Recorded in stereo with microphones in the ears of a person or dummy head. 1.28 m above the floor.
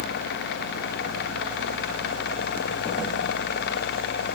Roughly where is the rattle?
I don't hear a rattle.